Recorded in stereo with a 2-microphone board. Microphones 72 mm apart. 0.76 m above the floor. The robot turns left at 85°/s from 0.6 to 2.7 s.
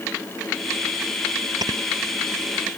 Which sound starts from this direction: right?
Snoring, at 1.6 s.